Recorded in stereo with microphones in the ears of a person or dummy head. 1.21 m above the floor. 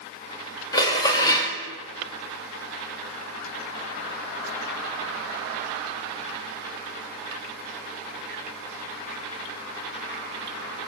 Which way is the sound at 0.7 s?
20° left (ahead or behind).